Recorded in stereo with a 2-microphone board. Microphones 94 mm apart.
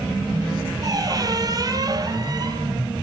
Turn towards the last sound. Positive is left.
turn(degrees=-40)  # may be behind; listen again after turning